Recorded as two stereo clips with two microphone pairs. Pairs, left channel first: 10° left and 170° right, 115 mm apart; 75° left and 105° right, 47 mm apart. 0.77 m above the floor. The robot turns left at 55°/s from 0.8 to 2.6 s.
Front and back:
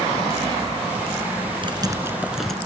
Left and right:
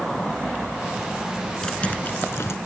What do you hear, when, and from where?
1.6 s typing on a keyboard: 150° left; by 2.5 s 100° left